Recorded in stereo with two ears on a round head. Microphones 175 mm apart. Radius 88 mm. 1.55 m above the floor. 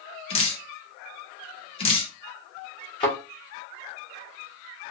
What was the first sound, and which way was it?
Dripping, 30° left (ahead or behind).